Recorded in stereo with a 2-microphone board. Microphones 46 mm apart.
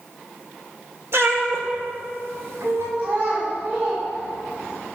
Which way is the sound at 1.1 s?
65° right (ahead or behind).